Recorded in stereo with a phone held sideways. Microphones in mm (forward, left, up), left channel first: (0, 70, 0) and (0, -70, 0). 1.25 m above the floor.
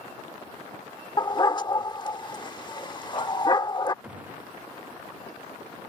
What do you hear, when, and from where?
1.2 s a dog barking: 30° left (ahead or behind)
4.0 s a gunshot: 10° right (ahead or behind)